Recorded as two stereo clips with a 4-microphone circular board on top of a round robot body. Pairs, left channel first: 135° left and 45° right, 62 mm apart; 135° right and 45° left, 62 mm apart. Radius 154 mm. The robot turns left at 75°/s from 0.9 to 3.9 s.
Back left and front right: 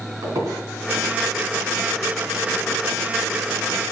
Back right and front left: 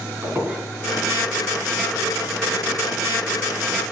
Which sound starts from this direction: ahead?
A squeak, at 0.2 s.